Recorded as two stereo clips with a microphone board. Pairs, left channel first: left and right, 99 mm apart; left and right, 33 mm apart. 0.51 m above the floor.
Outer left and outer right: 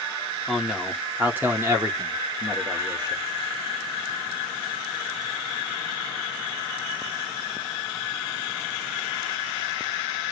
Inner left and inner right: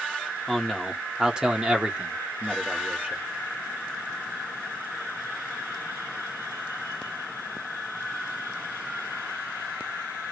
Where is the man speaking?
Centre (ahead or behind), 1.3 m; by 3.2 s 45° right (ahead or behind), 1.7 m.